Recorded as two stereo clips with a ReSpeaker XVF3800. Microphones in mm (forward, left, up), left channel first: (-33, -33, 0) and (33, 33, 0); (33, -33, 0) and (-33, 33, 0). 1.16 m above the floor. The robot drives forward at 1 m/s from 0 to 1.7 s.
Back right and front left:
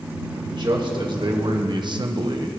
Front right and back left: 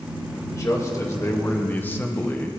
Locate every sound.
0.3 s a man speaking: 10° left, 2 m; by 2.5 s 20° left, 1.0 m